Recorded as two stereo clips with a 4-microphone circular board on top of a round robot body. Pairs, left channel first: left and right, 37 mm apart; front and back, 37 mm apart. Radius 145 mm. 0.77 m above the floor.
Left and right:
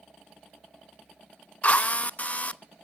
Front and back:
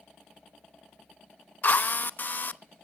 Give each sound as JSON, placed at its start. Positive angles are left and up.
{"t": 1.6, "sound": "a drill", "azimuth_deg": 40, "distance_m": 0.8}